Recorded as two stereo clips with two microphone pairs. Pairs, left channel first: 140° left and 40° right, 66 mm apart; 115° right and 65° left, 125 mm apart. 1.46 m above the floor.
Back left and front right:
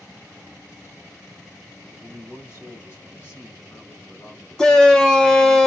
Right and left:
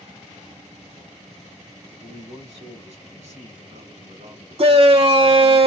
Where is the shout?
65° left, 0.5 m.